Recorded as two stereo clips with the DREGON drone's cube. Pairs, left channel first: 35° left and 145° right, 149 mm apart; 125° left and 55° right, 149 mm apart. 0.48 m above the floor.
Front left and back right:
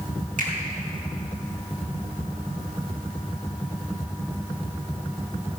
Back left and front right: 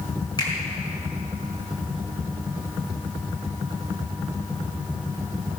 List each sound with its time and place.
0.4 s a finger snap: 175° right, 4.5 m